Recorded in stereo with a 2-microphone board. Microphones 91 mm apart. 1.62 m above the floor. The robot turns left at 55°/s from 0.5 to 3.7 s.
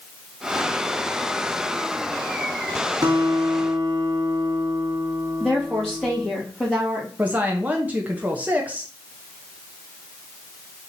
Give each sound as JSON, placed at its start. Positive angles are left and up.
{"t": 3.0, "sound": "a guitar", "azimuth_deg": -75, "distance_m": 1.4}
{"t": 5.4, "sound": "a woman speaking", "side_deg": 10, "distance_m": 2.0}
{"t": 7.2, "sound": "a woman speaking", "side_deg": -15, "distance_m": 0.7}